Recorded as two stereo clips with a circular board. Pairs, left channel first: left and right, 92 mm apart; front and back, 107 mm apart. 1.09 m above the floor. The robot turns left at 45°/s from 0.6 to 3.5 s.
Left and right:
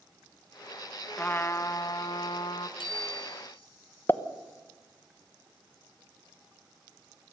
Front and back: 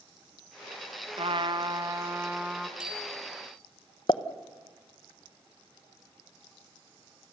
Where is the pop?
30° left, 1.1 m.